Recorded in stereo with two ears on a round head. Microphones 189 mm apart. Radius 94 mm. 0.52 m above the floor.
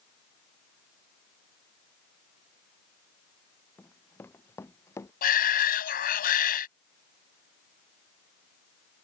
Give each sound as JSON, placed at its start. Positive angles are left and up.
{"t": 3.8, "sound": "running footsteps", "side_deg": 10}
{"t": 5.2, "sound": "a shout", "side_deg": 45}